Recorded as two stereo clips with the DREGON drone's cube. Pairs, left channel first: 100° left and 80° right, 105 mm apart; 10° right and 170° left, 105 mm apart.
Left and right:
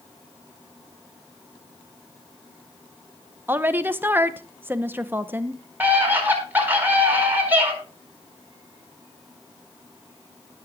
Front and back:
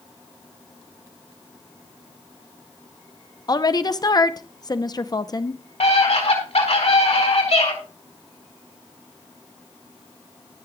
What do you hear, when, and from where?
3.5 s a woman speaking: 25° right, 0.7 m
5.8 s a scream: 5° right, 4.5 m